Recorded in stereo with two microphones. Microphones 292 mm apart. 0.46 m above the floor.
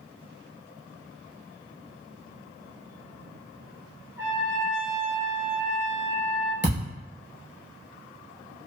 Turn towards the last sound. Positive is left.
turn(degrees=40)  # may be behind; listen again after turning